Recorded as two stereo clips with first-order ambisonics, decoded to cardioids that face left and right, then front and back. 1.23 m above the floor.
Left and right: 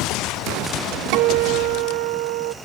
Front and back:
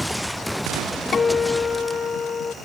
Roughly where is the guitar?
Right.